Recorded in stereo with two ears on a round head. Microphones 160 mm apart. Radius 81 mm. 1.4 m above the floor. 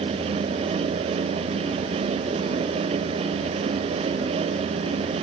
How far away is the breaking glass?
No breaking glass in this recording.